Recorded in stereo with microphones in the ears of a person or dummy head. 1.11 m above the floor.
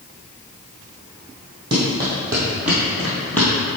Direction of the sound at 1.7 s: 25° right (ahead or behind).